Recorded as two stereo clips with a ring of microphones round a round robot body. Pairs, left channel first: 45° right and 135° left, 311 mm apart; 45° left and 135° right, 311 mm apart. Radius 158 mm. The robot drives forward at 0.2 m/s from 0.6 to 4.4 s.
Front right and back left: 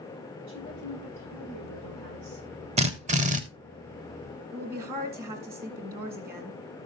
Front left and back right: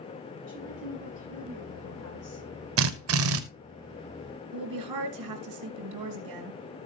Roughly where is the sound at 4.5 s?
Behind.